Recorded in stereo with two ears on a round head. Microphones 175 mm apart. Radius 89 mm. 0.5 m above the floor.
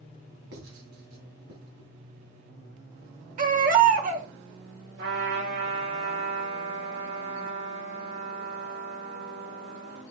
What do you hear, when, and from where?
0.5 s writing: 70° right (ahead or behind), 2.5 m
3.4 s a baby crying: 45° right (ahead or behind), 1.5 m
5.0 s a trumpet: 75° right (ahead or behind), 6 m